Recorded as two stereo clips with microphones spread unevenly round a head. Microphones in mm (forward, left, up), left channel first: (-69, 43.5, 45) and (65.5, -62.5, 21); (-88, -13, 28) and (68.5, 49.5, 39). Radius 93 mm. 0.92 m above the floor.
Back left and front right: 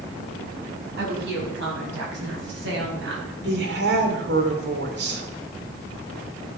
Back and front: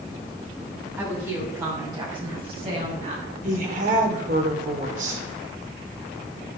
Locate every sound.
1.0 s a woman speaking: 55° right, 6.5 m; by 3.3 s 25° right, 5.5 m
3.4 s a woman speaking: 25° right, 2.5 m